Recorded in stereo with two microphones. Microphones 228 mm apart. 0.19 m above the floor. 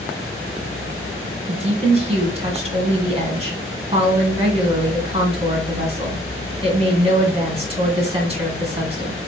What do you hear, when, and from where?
1.5 s a woman speaking: 25° right (ahead or behind), 1.7 m